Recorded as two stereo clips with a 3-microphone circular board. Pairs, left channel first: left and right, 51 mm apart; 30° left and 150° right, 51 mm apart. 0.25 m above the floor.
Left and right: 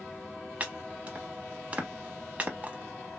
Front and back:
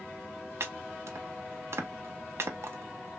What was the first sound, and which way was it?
Chopping, 145° right.